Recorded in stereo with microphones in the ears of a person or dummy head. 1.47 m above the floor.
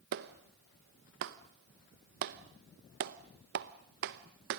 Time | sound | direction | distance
0.1 | a clap | 55° right (ahead or behind) | 0.9 m